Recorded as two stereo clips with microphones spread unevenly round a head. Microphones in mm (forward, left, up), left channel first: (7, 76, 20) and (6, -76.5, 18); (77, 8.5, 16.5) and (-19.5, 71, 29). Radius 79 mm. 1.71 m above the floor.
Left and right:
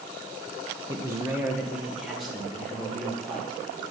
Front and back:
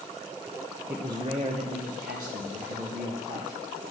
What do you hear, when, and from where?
0.9 s a man speaking: 145° right, 0.7 m; by 3.6 s 175° left, 3 m